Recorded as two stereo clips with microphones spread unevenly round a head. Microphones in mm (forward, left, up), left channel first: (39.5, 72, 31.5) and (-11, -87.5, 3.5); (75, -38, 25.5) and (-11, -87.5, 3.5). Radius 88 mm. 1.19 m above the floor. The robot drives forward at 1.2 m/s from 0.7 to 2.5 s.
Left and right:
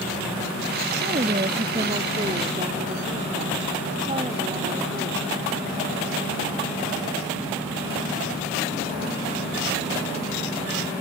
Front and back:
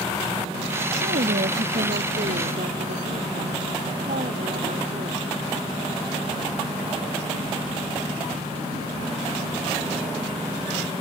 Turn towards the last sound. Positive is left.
turn(degrees=-175)